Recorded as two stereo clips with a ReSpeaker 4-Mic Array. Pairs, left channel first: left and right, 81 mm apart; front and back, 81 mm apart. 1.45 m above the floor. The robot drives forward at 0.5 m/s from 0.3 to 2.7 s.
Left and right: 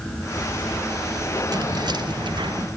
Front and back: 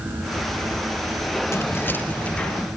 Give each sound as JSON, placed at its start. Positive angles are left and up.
{"t": 1.5, "sound": "keys jangling", "azimuth_deg": -55, "distance_m": 1.3}